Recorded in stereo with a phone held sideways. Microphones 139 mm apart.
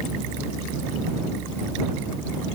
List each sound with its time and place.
Only background noise.